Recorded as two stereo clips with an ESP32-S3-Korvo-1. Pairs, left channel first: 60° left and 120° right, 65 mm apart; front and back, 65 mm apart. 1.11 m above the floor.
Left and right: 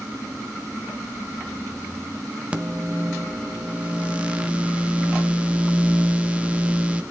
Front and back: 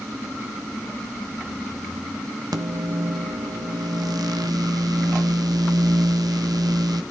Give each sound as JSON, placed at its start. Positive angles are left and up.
{"t": 2.5, "sound": "a microwave", "azimuth_deg": 170, "distance_m": 0.7}